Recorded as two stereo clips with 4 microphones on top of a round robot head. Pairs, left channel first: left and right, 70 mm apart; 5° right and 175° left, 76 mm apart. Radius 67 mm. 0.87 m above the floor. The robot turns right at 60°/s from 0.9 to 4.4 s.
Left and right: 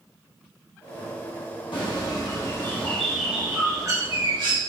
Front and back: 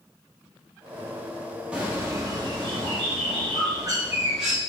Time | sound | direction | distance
1.7 | a bird | 95° left | 1.2 m